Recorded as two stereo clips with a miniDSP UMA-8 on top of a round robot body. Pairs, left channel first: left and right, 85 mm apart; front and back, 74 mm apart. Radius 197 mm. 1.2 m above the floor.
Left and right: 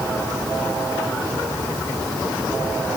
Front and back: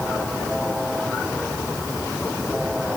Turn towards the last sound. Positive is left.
No sound to turn to.